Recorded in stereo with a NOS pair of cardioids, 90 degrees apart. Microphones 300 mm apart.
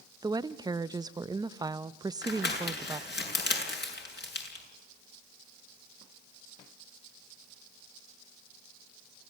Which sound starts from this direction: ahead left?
Crumpling, at 2.2 s.